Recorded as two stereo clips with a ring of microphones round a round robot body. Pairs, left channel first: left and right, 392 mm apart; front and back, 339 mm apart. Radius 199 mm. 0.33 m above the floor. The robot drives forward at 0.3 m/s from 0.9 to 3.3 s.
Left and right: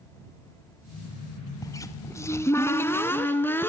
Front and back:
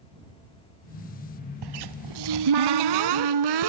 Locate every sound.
1.6 s a cupboard door: 170° left, 0.8 m; by 3.7 s 175° left, 1.3 m